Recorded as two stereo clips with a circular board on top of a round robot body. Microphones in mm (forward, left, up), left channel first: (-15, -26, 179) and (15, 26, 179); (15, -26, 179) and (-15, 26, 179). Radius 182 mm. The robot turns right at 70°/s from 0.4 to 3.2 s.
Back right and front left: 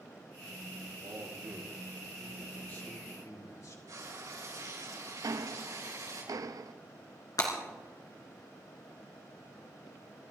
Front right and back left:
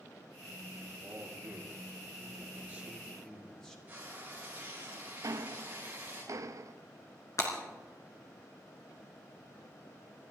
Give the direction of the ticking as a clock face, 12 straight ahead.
9 o'clock.